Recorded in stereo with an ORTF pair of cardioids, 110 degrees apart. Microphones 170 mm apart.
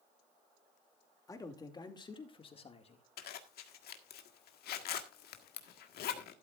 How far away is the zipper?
About 1.7 m.